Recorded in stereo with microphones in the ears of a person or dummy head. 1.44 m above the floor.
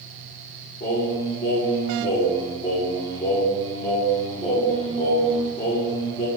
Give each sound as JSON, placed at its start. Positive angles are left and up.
{"t": 0.8, "sound": "singing", "side_deg": 30, "distance_m": 0.8}